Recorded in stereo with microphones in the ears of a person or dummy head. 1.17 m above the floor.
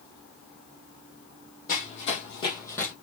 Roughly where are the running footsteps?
Left.